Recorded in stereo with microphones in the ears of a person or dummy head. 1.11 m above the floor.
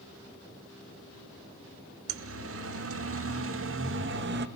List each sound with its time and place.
2.1 s a siren: 75° right (ahead or behind), 3 m; by 4.5 s 50° right (ahead or behind), 2 m